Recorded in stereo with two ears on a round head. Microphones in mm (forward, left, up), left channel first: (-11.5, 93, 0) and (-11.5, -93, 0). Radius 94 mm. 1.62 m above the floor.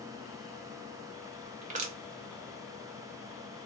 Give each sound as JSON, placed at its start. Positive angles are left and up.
{"t": 1.6, "sound": "crushing", "side_deg": -35, "distance_m": 0.7}